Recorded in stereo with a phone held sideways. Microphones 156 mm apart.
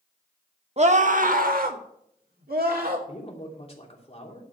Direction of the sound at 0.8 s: 45° right (ahead or behind).